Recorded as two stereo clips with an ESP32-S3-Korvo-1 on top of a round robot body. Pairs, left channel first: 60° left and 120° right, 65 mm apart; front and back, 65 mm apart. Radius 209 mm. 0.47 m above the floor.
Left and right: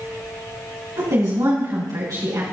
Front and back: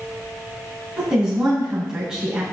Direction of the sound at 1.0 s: 100° right.